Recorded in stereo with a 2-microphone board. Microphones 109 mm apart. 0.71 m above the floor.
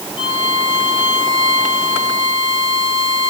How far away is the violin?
About 4.5 m.